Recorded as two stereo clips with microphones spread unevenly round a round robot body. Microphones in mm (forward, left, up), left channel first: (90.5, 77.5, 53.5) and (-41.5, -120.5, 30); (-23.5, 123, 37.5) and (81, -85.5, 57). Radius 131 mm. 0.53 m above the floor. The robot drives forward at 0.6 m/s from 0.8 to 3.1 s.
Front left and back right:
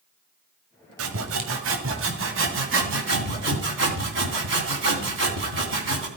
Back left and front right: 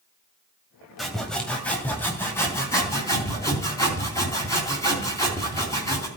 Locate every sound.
1.0 s sawing: 155° right, 1.6 m; by 6.1 s 165° right, 3 m